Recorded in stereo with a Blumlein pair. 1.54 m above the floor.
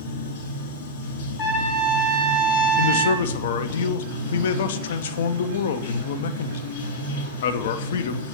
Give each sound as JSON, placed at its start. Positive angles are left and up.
{"t": 0.0, "sound": "running water", "azimuth_deg": 55, "distance_m": 1.8}
{"t": 1.4, "sound": "a trumpet", "azimuth_deg": 40, "distance_m": 1.2}
{"t": 2.8, "sound": "a man speaking", "azimuth_deg": 60, "distance_m": 0.5}